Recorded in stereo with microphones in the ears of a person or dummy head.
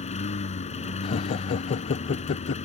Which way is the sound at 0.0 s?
30° left (ahead or behind).